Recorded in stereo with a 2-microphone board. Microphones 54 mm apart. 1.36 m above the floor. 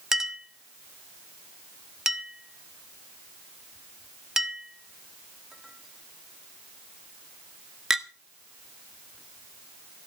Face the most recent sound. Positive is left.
turn(degrees=-10)  # may be behind; listen again after turning